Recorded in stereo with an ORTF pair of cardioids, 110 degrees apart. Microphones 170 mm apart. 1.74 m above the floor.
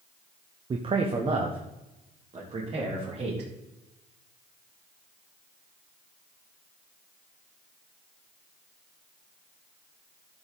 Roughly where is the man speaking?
Ahead right.